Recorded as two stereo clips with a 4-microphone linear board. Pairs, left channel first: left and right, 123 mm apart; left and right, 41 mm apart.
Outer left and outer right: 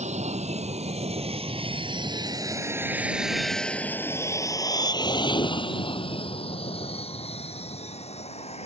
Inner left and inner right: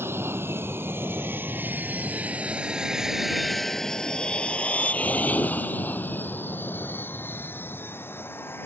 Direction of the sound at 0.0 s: 70° right (ahead or behind).